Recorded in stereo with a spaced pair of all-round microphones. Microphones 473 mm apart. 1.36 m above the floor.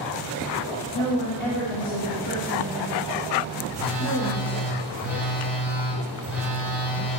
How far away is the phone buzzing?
About 3 m.